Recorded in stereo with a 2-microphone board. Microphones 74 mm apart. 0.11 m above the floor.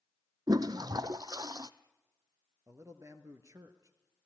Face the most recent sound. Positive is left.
turn(degrees=-45)  # may be behind; listen again after turning